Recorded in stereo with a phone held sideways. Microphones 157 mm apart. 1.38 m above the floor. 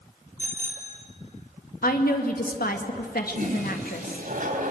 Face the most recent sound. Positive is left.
turn(degrees=-60)  # may be behind; listen again after turning